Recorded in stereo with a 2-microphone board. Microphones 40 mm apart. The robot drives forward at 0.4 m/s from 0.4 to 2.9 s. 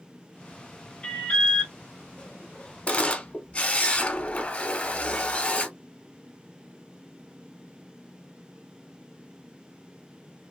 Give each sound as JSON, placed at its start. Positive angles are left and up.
{"t": 1.0, "sound": "an alarm", "side_deg": 20, "distance_m": 1.2}
{"t": 2.9, "sound": "a camera shutter", "side_deg": 30, "distance_m": 0.7}